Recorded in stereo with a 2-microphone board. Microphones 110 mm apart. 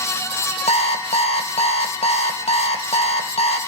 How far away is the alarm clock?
About 2 m.